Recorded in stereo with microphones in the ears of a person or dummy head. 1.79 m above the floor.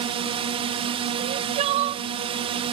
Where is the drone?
30° right (ahead or behind).